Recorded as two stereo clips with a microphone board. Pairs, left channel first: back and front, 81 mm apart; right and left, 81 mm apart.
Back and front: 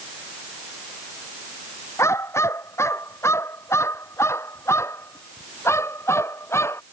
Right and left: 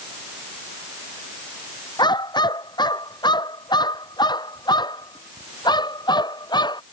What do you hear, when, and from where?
2.0 s a dog barking: 120° right